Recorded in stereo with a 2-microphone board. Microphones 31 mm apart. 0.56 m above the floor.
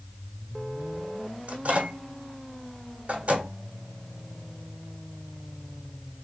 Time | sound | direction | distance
1.5 | a microwave | 55° right (ahead or behind) | 1.3 m